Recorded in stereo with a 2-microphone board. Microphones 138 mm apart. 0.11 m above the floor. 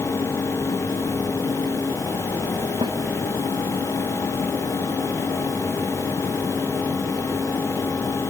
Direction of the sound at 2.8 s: 35° right (ahead or behind).